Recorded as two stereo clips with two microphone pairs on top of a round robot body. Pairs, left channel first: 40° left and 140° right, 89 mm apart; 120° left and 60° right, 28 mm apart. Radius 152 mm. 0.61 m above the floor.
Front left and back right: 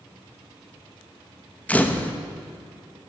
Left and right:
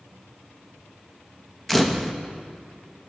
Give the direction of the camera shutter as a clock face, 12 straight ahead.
11 o'clock.